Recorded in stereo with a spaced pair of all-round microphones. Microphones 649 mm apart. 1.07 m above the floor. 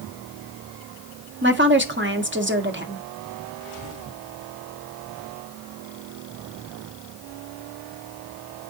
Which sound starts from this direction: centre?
A woman speaking, at 1.4 s.